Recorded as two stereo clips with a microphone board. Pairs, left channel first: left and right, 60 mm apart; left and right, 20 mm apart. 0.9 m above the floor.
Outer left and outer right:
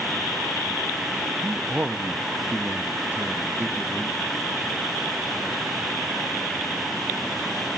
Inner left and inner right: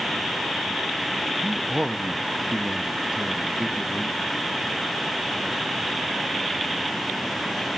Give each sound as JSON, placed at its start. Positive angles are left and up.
{"t": 1.4, "sound": "a man speaking", "side_deg": -25, "distance_m": 0.8}